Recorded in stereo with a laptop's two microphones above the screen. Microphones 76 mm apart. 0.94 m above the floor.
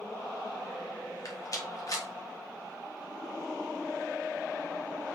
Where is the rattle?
50° left (ahead or behind), 2 m.